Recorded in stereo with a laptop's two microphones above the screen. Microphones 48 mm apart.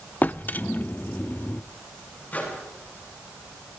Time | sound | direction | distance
0.2 | a drawer | 40° left (ahead or behind) | 0.6 m
2.3 | a microwave | 30° left (ahead or behind) | 8 m